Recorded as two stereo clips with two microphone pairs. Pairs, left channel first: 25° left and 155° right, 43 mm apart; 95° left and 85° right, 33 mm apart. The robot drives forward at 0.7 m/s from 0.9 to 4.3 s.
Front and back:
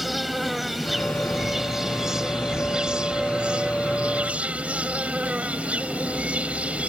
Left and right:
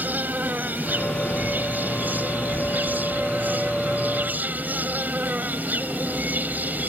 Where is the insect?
70° right; by 6.9 s 95° right.